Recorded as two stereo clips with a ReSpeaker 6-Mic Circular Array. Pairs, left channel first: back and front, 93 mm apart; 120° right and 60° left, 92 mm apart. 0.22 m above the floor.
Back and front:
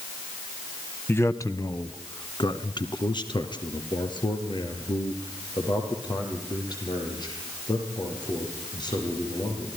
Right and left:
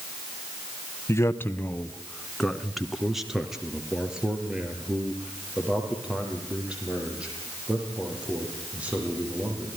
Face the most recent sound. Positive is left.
turn(degrees=135)